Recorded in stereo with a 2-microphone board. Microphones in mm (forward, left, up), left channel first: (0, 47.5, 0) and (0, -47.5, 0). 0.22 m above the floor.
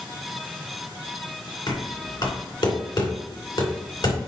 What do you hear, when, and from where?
1.7 s knocking: 60° left (ahead or behind), 2.5 m